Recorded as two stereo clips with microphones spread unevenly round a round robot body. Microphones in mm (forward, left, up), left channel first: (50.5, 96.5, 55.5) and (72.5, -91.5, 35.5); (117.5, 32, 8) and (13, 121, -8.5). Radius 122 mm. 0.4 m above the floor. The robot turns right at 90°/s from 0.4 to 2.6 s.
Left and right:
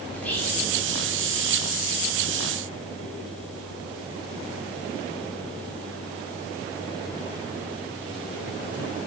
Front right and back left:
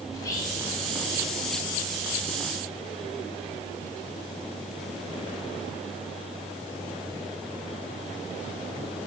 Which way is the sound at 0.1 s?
10° left.